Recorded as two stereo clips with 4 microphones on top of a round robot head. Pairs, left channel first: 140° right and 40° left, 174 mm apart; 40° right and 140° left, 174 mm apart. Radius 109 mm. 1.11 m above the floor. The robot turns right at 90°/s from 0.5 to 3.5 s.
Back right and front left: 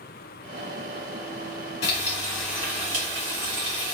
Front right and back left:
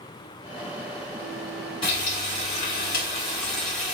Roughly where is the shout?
No shout in this recording.